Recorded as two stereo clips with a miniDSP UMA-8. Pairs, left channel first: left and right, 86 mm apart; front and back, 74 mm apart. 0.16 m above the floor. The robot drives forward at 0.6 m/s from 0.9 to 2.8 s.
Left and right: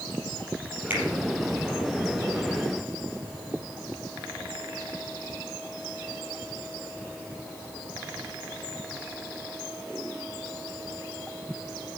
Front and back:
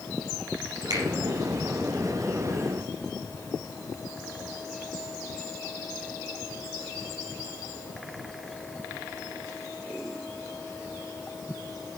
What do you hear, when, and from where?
0.9 s a finger snap: 155° right, 4.5 m; by 1.0 s 160° right, 4.5 m